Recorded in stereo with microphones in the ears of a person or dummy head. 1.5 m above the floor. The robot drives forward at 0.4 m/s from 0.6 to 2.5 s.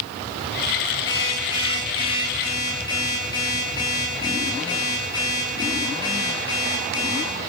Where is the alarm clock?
25° left (ahead or behind), 8.5 m.